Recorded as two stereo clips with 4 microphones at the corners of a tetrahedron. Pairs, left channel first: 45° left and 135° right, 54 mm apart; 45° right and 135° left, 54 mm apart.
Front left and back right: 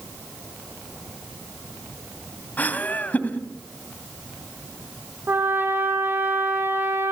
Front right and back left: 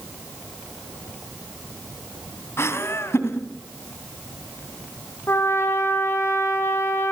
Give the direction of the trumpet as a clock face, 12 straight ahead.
3 o'clock.